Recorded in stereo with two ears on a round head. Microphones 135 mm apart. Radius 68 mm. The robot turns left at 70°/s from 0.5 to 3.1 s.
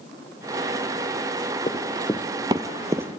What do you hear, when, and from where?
1.7 s running footsteps: 30° left (ahead or behind), 1.4 m; by 3.2 s 5° right (ahead or behind), 0.8 m